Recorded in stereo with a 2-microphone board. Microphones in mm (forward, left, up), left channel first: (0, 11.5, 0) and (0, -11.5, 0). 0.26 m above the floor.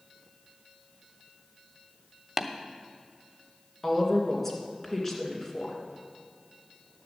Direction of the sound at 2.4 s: 15° right (ahead or behind).